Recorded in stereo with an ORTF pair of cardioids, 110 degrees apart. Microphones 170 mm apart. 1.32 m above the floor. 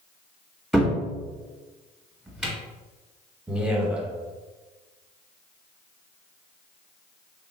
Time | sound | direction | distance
0.7 | a cupboard door | 5° right | 1.0 m
3.5 | a man speaking | 5° right | 0.8 m